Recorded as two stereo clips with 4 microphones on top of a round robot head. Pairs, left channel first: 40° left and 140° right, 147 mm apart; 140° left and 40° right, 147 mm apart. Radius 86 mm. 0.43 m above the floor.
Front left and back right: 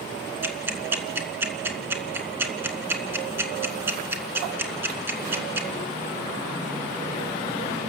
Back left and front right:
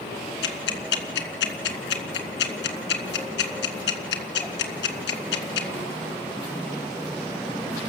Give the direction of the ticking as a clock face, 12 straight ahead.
7 o'clock.